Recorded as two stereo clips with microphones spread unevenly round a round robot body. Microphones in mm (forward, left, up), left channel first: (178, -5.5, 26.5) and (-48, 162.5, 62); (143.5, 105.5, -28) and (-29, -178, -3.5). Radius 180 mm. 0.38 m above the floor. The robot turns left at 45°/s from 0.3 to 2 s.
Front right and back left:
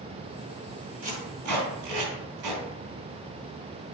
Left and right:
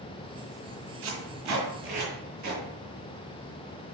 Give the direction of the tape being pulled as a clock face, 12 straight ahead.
5 o'clock.